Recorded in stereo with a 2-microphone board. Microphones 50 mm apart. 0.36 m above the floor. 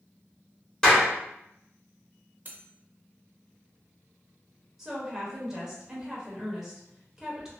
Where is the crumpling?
No crumpling in this recording.